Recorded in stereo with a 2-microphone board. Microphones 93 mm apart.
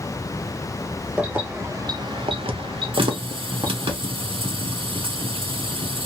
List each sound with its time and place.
1.2 s keys jangling: 15° right (ahead or behind), 0.9 m; by 3.9 s 45° right (ahead or behind), 1.3 m
2.9 s a running tap: 75° right (ahead or behind), 0.7 m